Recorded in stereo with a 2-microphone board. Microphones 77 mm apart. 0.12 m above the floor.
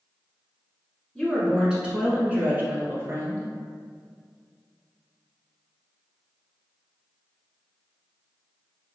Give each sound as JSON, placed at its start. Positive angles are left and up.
{"t": 1.1, "sound": "a woman speaking", "side_deg": 0, "distance_m": 1.2}